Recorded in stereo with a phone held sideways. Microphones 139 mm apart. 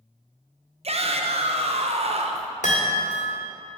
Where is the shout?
50° right (ahead or behind), 0.8 m.